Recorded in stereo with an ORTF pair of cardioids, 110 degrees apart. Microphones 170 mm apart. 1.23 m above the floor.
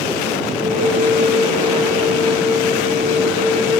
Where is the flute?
60° right, 4 m.